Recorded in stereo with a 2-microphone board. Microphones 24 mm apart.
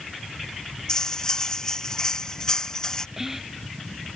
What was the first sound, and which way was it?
Cutlery clinking, 25° left (ahead or behind).